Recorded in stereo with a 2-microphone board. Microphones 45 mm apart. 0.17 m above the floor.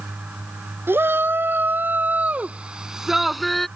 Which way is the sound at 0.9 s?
55° right (ahead or behind).